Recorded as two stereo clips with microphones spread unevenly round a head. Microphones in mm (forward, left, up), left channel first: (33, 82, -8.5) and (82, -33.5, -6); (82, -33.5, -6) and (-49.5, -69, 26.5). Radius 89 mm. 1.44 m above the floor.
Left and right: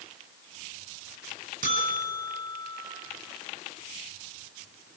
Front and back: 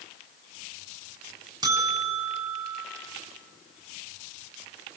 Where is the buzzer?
105° right, 6.5 m.